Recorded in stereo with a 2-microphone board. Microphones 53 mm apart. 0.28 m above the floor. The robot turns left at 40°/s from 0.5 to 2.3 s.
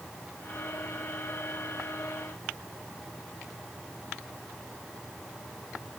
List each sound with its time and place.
Only background noise.